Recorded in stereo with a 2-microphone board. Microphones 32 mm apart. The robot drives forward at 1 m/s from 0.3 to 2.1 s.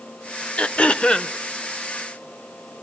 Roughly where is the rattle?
No rattle in this recording.